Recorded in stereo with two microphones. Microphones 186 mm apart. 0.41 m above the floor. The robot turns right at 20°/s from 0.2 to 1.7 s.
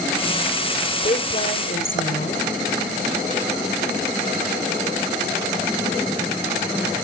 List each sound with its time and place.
1.0 s a woman speaking: 45° left (ahead or behind), 1.2 m; by 2.5 s 50° left (ahead or behind), 1.2 m